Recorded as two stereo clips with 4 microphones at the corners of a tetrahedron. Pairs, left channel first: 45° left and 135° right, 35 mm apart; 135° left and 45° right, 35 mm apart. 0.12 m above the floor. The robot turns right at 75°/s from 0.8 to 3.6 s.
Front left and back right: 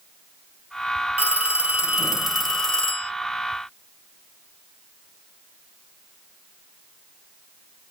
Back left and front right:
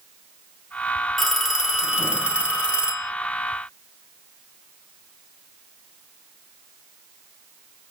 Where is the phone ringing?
130° right, 0.9 m; by 3.1 s 15° left, 0.9 m.